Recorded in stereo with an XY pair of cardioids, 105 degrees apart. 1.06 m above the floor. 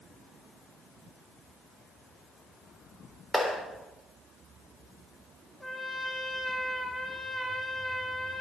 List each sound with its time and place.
3.3 s a clap: 15° left, 3.5 m
5.6 s a trumpet: 10° left, 2 m